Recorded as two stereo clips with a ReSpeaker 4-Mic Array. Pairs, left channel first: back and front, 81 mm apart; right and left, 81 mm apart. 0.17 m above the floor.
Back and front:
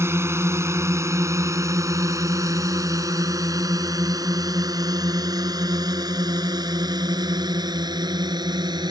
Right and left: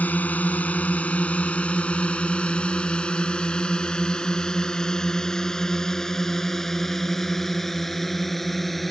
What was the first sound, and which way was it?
A drone, 35° right.